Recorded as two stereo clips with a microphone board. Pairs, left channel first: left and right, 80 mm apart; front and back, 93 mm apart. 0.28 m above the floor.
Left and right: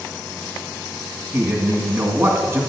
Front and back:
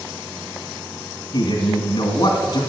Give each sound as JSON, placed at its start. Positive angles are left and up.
{"t": 1.3, "sound": "a man speaking", "azimuth_deg": -30, "distance_m": 2.0}